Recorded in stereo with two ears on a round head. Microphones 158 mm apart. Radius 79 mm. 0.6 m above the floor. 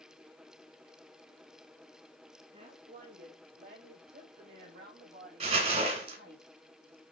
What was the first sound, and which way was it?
A woman speaking, 40° right (ahead or behind).